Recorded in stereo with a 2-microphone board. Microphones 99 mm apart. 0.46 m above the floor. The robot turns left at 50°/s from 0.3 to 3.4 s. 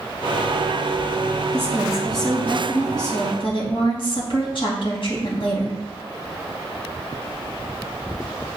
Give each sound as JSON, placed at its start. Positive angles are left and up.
{"t": 1.5, "sound": "a woman speaking", "azimuth_deg": -155, "distance_m": 3.5}